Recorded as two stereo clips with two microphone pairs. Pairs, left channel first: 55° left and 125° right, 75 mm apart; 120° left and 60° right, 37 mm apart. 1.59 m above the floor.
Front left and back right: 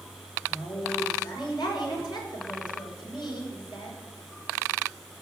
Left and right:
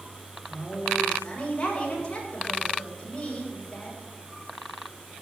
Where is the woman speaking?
55° left, 6.5 m.